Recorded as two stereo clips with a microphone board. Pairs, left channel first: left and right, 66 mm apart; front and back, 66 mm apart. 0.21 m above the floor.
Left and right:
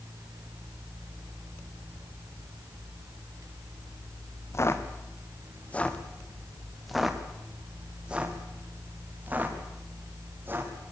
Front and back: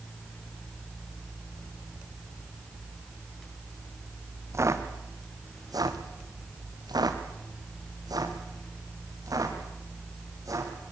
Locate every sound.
4.5 s footsteps: 135° left, 2.5 m; by 10.7 s 145° right, 6 m